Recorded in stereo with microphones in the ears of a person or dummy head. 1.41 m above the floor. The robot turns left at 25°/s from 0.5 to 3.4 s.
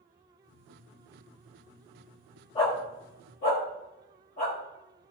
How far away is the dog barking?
About 1.7 m.